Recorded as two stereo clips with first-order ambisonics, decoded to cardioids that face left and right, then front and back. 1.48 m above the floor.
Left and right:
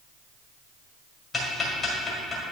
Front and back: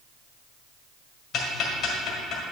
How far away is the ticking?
About 1.6 m.